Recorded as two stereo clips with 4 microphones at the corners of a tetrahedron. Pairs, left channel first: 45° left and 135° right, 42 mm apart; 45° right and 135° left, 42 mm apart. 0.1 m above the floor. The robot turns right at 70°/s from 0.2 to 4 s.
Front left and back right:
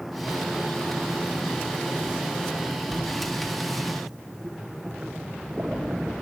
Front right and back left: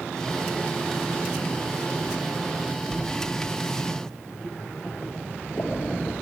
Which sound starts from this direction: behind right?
A splash, at 2.9 s.